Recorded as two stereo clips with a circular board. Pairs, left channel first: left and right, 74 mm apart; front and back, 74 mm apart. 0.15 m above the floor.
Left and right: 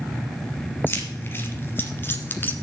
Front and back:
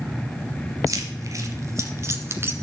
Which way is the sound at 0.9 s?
145° left.